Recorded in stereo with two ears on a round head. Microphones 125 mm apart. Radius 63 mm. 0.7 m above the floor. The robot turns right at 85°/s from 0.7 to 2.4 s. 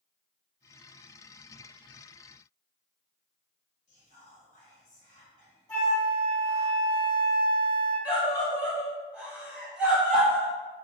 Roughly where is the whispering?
Left.